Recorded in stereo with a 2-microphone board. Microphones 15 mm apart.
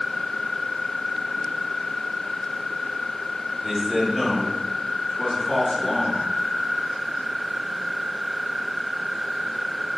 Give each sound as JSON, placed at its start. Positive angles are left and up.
{"t": 3.6, "sound": "a man speaking", "side_deg": -10, "distance_m": 1.6}